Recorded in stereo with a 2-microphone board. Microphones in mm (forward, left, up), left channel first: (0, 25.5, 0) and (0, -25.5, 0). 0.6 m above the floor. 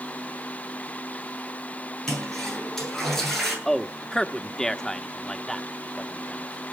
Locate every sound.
2.1 s a toilet flushing: 5° left (ahead or behind), 9 m
3.6 s a man speaking: 15° left (ahead or behind), 1.1 m